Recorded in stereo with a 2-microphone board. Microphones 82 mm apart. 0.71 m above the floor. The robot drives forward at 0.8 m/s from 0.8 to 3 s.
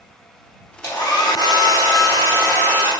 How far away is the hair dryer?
About 0.8 m.